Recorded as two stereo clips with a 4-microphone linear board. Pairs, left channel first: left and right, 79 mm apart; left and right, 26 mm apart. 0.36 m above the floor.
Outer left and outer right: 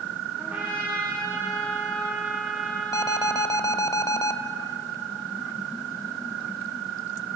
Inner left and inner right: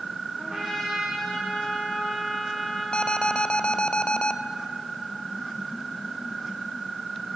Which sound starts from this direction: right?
A trumpet, at 0.4 s.